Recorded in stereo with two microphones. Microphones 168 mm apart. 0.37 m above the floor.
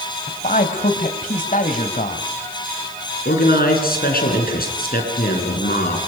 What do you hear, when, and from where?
0.3 s a man speaking: 50° left (ahead or behind), 1.7 m
3.2 s a man speaking: 60° left (ahead or behind), 4.5 m